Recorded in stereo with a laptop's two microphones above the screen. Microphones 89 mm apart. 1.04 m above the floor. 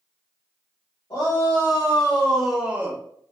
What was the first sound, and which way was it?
A shout, 40° left (ahead or behind).